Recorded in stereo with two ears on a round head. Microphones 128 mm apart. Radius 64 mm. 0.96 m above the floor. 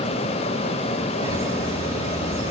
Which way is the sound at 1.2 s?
20° right (ahead or behind).